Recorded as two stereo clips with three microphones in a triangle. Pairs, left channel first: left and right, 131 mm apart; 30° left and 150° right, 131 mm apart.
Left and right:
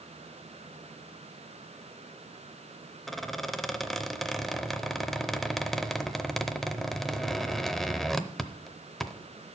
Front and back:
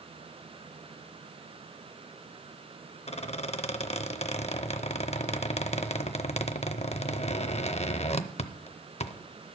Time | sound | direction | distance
3.1 | a squeak | straight ahead | 0.5 m